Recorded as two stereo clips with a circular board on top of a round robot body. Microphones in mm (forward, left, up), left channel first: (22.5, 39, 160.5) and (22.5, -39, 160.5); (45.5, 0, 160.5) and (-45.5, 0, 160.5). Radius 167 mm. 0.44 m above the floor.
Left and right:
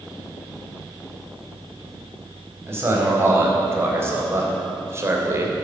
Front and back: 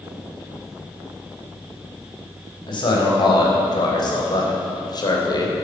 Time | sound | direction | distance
2.7 | a man speaking | 30° right | 4.5 m